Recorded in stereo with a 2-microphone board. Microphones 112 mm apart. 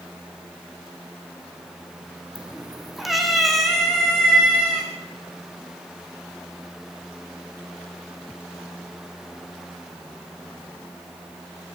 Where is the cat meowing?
10° right (ahead or behind), 1.6 m; by 4.9 s 5° left (ahead or behind), 5.5 m.